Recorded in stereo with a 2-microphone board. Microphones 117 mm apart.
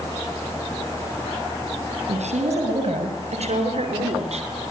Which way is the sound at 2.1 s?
75° right (ahead or behind).